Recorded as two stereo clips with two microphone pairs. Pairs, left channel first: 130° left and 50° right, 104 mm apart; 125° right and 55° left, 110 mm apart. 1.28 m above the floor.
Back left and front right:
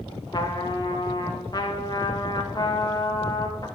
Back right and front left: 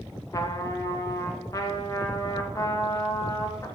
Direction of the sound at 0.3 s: 175° left.